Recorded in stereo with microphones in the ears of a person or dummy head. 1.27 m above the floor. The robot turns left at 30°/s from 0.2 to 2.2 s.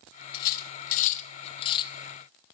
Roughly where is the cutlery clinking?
Left.